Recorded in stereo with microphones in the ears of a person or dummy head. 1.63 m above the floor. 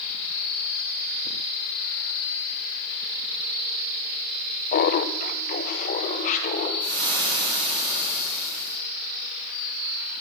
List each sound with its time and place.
4.7 s laughter: 55° left (ahead or behind), 0.9 m; by 6.7 s 45° left (ahead or behind), 2.5 m
6.8 s frying: 25° right (ahead or behind), 7 m